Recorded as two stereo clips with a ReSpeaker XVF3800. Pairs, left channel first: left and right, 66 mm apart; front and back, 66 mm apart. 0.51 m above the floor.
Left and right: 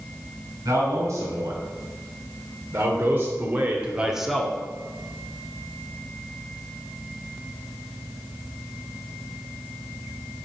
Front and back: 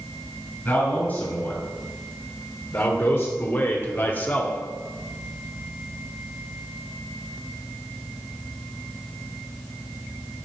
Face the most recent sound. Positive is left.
turn(degrees=25)